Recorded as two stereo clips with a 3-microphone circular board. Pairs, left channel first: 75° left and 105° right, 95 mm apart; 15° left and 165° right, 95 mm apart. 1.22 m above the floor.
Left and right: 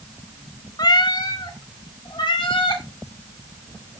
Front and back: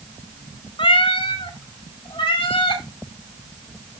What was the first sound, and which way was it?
A cat meowing, 35° left.